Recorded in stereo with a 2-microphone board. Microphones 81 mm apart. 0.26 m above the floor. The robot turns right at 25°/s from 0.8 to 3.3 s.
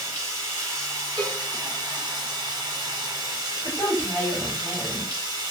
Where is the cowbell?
60° right (ahead or behind), 1.1 m; by 1.4 s 65° right (ahead or behind), 1.1 m.